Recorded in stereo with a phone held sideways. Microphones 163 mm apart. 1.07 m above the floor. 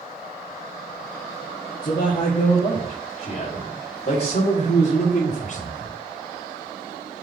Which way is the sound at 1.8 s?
60° left (ahead or behind).